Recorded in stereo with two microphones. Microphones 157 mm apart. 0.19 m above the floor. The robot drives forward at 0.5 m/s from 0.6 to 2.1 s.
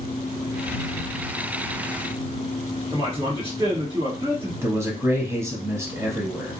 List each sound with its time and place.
2.9 s a man speaking: 30° right (ahead or behind), 2 m
4.6 s a man speaking: 15° right (ahead or behind), 1.1 m